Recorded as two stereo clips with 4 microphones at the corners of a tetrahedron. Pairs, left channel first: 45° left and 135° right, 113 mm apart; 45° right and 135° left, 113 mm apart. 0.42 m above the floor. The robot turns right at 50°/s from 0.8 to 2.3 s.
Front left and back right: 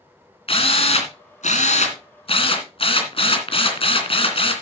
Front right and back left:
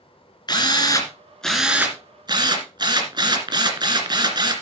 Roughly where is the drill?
Ahead.